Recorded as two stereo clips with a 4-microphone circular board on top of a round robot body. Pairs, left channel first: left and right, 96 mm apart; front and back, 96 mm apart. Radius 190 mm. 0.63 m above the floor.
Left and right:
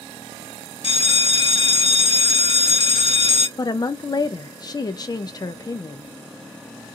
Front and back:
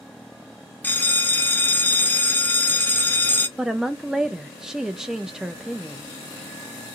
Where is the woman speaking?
95° left, 0.5 m.